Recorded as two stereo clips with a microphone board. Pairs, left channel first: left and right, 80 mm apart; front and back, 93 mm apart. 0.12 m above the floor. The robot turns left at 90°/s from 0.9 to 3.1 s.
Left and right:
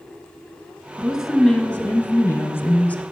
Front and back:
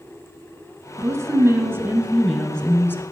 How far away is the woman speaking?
About 1.5 m.